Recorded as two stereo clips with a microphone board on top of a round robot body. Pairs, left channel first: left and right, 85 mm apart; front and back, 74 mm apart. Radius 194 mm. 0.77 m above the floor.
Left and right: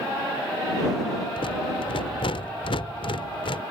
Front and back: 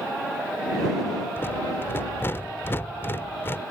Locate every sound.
1.4 s a rattle: 65° left